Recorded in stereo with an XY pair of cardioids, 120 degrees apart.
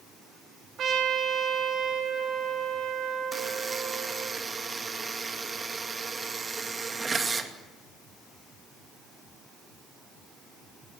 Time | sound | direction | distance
0.8 | a trumpet | 55° right | 4 m
3.3 | a buzzer | 25° right | 2.5 m